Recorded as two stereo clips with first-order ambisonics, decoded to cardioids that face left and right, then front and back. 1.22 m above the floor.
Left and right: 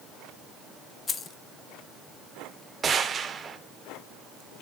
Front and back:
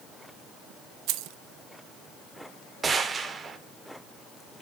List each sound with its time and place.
1.1 s keys jangling: 155° left, 0.7 m
2.8 s a gunshot: 130° right, 0.9 m